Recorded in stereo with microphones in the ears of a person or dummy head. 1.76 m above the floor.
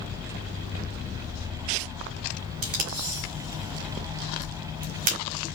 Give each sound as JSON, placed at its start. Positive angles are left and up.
{"t": 2.6, "sound": "tape being pulled", "side_deg": -45, "distance_m": 0.9}